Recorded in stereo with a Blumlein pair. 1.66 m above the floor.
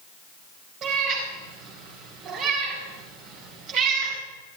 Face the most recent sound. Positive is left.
turn(degrees=-35)